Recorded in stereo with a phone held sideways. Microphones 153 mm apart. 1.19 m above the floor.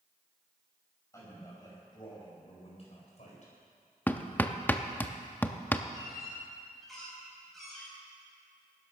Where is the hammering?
10° left (ahead or behind), 0.7 m.